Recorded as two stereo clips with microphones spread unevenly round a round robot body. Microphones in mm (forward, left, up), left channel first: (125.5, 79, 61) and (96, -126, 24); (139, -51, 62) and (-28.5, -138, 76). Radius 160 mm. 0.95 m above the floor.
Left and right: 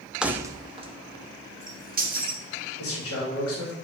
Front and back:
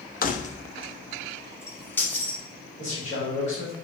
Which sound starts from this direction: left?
A man speaking, at 2.8 s.